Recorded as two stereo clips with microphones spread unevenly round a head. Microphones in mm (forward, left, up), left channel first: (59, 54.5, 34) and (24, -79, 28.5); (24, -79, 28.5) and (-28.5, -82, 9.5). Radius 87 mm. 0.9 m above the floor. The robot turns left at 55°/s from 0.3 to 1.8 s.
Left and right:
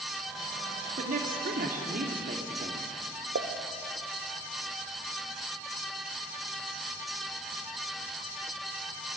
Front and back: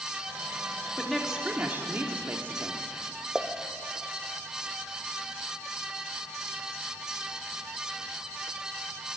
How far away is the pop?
About 1.5 m.